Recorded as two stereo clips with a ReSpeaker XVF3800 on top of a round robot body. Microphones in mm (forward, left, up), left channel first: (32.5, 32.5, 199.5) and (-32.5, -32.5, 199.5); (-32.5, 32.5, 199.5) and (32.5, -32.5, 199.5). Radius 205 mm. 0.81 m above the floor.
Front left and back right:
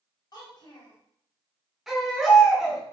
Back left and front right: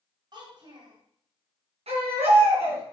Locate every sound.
0.3 s a child speaking: 5° right, 3.5 m
1.9 s a baby crying: 50° right, 3.5 m